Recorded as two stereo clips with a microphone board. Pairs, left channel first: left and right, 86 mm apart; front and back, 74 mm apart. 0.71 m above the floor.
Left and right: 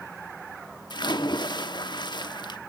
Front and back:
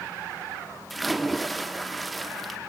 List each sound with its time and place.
0.9 s a splash: 90° left, 1.0 m